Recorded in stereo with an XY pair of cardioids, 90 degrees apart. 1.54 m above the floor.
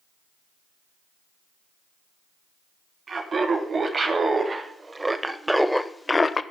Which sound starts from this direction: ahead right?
Laughter, at 3.1 s.